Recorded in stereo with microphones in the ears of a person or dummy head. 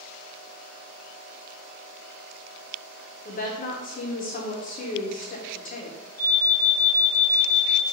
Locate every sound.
3.2 s a woman speaking: 40° left (ahead or behind), 0.6 m
6.2 s an alarm: 10° left (ahead or behind), 1.6 m